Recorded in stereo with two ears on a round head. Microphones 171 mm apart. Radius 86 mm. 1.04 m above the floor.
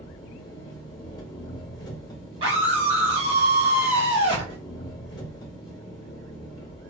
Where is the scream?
30° right (ahead or behind), 1.7 m.